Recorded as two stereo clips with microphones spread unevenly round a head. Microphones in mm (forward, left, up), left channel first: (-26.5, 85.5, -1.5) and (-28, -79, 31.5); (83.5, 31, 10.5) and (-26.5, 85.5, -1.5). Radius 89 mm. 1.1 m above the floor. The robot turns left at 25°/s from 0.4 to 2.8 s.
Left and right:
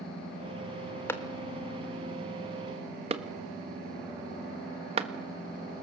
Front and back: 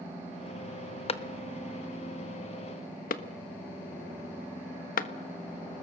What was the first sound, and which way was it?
A clap, 15° left.